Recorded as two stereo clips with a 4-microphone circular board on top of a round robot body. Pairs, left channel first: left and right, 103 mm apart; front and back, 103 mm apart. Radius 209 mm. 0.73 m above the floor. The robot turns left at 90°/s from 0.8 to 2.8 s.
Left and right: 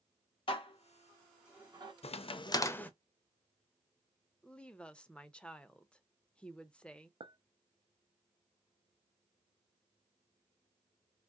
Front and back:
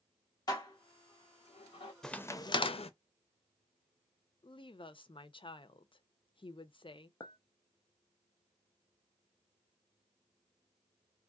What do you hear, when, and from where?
0.5 s dishes clattering: 50° left, 1.6 m; by 1.9 s 50° right, 1.6 m
2.0 s a crack: 85° left, 0.7 m; by 2.9 s 15° left, 0.7 m
4.4 s a woman speaking: 10° left, 0.8 m
7.2 s a clink: 55° right, 0.7 m